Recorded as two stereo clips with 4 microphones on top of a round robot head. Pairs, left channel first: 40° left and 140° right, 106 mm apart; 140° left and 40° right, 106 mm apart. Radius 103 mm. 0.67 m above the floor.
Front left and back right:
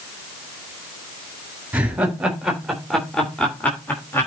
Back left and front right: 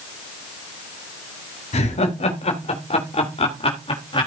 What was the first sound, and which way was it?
Laughter, 140° left.